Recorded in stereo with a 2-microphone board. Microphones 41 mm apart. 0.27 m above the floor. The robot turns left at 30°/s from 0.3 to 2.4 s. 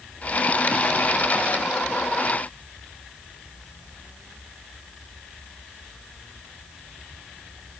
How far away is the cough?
I don't hear a cough.